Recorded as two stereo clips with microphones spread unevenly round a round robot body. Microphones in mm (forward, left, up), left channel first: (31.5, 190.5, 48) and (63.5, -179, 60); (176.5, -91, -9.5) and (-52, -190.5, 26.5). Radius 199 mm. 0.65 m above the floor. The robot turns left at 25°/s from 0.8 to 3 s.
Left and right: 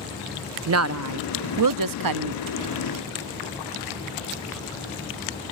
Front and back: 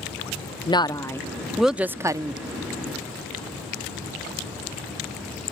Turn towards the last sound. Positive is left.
turn(degrees=-95)